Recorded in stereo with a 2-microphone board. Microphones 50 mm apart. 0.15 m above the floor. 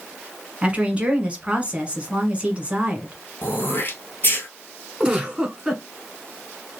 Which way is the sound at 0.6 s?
25° right (ahead or behind).